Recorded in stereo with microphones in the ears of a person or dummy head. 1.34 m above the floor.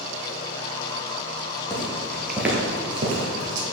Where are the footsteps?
20° left (ahead or behind), 2 m; by 3.6 s 50° right (ahead or behind), 2 m.